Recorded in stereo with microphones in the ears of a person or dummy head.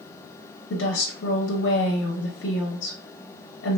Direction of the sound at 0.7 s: 55° left (ahead or behind).